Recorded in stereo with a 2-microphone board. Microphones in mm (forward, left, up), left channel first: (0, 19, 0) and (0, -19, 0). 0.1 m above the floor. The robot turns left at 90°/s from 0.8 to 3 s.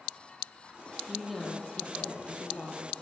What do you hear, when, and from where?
1.1 s a woman speaking: 160° right, 3.5 m; by 2.9 s 30° left, 3.5 m